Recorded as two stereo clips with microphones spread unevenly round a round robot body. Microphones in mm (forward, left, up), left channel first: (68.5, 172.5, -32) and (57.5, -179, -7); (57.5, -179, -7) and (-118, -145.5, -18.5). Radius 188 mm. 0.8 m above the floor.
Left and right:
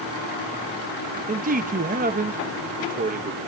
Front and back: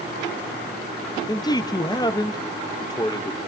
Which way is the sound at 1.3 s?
55° right.